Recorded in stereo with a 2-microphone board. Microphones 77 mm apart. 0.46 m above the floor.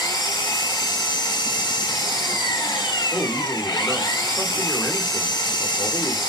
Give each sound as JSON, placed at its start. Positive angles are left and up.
{"t": 0.0, "sound": "an engine running", "side_deg": 80, "distance_m": 0.8}
{"t": 3.1, "sound": "a man speaking", "side_deg": 20, "distance_m": 0.8}